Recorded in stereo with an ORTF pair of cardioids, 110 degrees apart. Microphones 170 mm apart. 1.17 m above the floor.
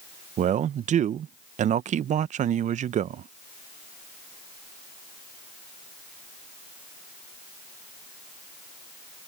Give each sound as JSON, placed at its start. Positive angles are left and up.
{"t": 0.4, "sound": "a man speaking", "azimuth_deg": -45}